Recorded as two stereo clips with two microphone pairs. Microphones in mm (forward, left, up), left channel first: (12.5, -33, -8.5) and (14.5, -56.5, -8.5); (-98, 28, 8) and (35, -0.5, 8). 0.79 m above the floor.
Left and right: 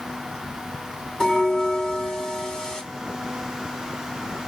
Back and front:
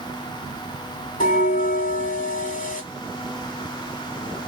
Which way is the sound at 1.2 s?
160° left.